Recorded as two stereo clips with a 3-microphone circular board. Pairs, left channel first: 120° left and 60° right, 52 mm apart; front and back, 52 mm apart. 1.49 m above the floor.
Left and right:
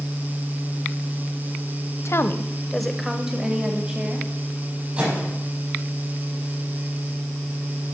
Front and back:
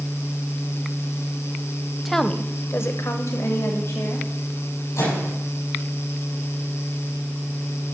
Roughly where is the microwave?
Ahead.